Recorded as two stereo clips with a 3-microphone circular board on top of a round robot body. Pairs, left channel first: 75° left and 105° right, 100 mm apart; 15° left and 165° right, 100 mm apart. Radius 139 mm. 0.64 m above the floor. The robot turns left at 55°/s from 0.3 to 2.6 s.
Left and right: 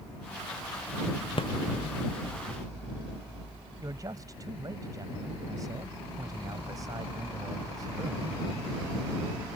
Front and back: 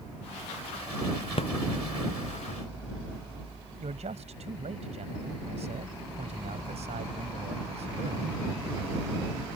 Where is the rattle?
40° left; by 1.5 s 35° left.